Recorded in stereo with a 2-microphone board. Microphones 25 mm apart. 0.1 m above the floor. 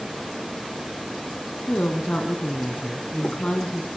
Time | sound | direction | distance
1.7 | a woman speaking | 65° left (ahead or behind) | 4 m